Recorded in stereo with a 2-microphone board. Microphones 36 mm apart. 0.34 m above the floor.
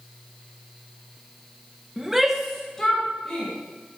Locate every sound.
2.0 s a shout: 15° right (ahead or behind), 1.0 m; by 3.5 s 10° left (ahead or behind), 2.5 m